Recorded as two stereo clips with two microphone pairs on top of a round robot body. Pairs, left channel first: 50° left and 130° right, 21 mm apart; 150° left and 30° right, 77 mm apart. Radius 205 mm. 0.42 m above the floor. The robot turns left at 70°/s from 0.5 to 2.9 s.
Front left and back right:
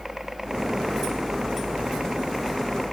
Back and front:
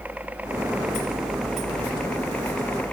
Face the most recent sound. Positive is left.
turn(degrees=130)